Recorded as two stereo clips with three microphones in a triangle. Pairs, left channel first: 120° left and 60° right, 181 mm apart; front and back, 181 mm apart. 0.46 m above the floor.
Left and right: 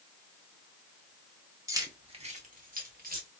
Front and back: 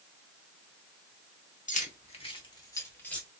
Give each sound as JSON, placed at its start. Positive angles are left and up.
{"t": 1.7, "sound": "keys jangling", "azimuth_deg": 5, "distance_m": 0.7}